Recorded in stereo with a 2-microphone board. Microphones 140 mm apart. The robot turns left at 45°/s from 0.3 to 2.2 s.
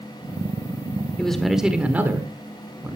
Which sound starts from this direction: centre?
A man speaking, at 1.2 s.